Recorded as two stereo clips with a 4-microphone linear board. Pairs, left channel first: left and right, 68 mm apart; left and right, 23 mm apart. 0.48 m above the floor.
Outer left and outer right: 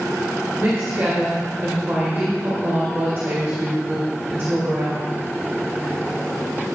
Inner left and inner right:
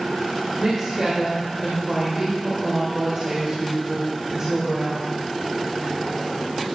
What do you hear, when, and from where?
0.6 s a woman speaking: 40° right (ahead or behind), 2 m